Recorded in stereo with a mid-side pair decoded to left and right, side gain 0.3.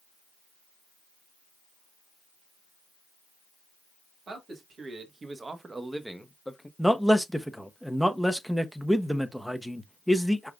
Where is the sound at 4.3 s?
70° right, 1.8 m; by 6.7 s 15° left, 1.0 m.